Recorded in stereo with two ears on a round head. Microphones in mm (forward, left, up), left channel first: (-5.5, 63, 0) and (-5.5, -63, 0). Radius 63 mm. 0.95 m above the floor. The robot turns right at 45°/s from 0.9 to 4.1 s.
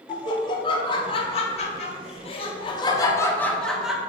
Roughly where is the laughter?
Ahead left.